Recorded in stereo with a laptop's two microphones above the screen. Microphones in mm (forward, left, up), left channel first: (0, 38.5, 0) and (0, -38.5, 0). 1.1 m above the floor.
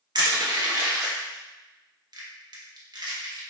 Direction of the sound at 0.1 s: 55° right (ahead or behind).